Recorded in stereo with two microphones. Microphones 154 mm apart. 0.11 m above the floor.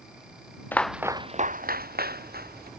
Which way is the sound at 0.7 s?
10° left (ahead or behind).